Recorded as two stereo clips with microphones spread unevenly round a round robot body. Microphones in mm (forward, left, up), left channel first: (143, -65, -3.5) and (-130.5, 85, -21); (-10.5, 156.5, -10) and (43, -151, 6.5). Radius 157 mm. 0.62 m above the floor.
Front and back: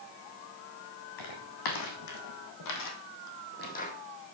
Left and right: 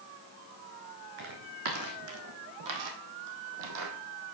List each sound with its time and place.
1.2 s footsteps: 35° right, 3 m; by 3.9 s 95° right, 1.7 m